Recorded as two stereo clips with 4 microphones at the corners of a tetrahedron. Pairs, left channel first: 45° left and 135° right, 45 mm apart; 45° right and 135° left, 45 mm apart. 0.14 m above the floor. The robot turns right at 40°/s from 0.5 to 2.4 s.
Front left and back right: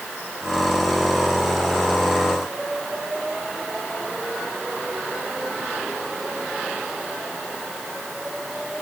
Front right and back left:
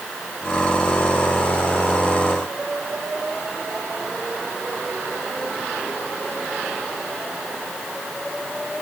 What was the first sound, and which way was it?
Only background noise.